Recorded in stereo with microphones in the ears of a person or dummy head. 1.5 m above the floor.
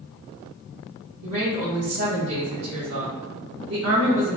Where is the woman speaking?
80° right, 1.7 m.